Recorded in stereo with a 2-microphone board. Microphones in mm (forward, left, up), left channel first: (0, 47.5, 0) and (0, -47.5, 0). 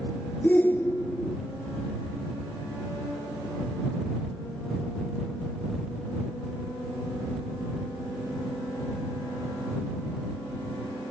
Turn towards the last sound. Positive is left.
turn(degrees=20)  # may be behind; listen again after turning